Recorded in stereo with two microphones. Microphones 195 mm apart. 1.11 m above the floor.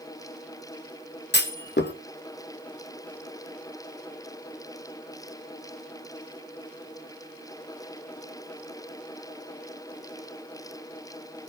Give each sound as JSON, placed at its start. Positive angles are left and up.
{"t": 1.3, "sound": "a clunk", "side_deg": 60, "distance_m": 1.1}